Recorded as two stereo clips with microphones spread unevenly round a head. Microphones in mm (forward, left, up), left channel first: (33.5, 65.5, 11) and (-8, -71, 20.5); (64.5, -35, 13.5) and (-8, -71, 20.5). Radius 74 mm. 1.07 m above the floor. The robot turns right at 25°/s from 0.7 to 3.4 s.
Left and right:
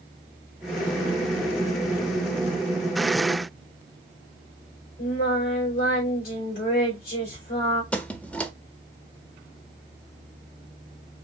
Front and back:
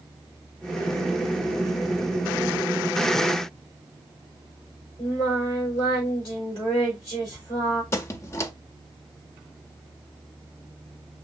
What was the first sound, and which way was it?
Singing, 100° left.